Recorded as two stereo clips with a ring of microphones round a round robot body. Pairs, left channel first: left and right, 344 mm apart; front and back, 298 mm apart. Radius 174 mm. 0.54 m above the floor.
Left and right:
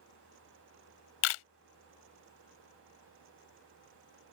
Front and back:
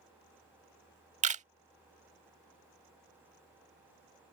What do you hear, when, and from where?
1.2 s a camera shutter: 115° left